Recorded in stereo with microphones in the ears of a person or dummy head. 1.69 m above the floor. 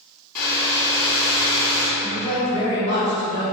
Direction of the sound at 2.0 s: 20° right (ahead or behind).